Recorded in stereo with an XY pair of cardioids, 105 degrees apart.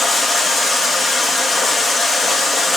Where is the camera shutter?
No camera shutter in this recording.